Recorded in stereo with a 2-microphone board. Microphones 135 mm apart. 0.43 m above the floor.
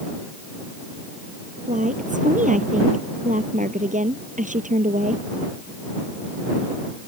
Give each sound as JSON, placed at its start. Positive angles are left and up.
{"t": 1.7, "sound": "a woman speaking", "side_deg": -70}